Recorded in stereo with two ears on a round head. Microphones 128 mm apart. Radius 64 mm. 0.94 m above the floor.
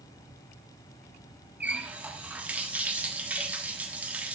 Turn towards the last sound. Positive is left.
turn(degrees=-10)  # may be behind; listen again after turning